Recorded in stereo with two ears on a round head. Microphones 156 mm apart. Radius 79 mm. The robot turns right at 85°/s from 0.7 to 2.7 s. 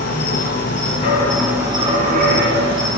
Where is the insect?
125° left, 1.6 m; by 3.0 s 65° right, 1.6 m.